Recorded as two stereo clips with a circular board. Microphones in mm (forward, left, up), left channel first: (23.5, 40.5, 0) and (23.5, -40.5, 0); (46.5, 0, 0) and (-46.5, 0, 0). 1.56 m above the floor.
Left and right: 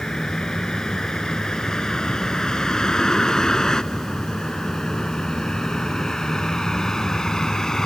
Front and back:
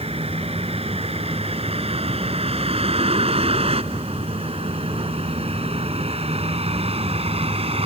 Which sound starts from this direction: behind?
A vehicle, at 0.0 s.